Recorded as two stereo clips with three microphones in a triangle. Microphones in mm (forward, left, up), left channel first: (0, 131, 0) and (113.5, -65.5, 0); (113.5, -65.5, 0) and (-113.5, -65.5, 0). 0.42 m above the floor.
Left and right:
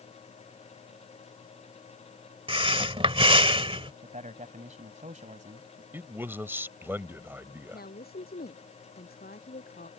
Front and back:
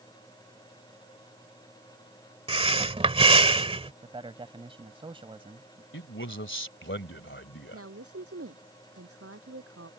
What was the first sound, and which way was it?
Breathing, 120° right.